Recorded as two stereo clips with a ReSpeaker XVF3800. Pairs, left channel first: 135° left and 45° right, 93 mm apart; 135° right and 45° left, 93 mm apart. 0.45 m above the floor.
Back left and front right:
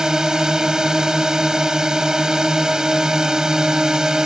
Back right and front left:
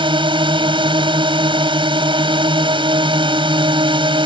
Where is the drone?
40° left.